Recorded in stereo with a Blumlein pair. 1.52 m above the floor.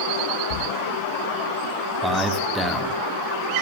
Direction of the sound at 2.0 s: 5° left.